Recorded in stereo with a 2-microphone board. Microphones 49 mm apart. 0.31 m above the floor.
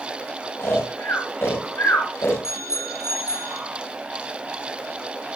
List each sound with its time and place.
0.6 s snoring: 65° left (ahead or behind), 9 m
2.4 s a bicycle bell: 80° left, 9 m